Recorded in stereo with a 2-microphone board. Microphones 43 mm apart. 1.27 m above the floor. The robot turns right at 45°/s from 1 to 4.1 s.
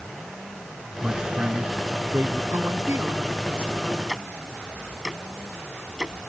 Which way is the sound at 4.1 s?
10° right (ahead or behind).